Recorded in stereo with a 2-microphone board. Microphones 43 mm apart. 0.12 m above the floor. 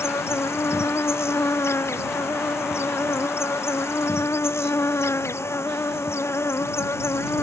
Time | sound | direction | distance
0.0 | an insect | 85° left | ?